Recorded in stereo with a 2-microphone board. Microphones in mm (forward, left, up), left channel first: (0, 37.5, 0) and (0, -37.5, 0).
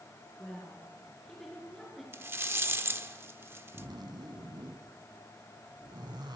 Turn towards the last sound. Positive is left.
turn(degrees=-75)  # may be behind; listen again after turning